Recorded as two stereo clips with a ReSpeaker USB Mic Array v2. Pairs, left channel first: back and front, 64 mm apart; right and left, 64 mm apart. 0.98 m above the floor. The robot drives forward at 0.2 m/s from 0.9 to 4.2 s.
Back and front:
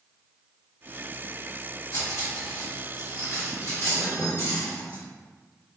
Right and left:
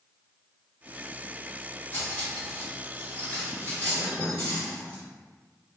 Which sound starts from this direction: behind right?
Cutlery clinking, at 1.9 s.